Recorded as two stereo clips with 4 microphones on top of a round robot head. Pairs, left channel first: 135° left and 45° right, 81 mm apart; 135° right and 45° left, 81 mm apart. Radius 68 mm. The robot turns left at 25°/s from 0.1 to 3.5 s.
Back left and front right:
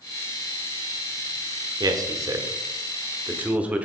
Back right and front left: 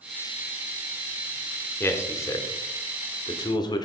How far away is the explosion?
I don't hear an explosion.